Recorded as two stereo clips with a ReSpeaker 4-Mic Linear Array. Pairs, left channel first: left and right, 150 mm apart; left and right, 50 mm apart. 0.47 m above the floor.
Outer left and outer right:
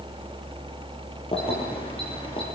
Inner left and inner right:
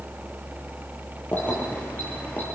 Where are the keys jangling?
40° left (ahead or behind), 10 m; by 2.4 s 35° left (ahead or behind), 8.5 m.